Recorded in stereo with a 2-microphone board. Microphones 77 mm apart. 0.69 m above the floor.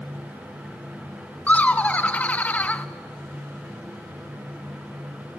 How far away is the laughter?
About 0.5 m.